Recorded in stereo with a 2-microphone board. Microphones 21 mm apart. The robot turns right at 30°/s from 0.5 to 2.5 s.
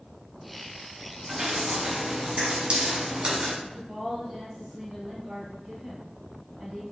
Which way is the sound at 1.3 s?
40° right (ahead or behind).